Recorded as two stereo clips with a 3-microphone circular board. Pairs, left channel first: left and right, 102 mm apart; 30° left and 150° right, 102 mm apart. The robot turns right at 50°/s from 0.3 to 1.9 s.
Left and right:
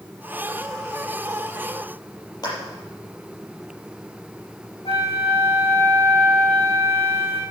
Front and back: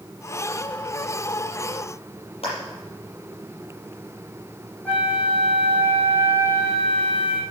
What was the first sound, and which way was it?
A clap, 45° left.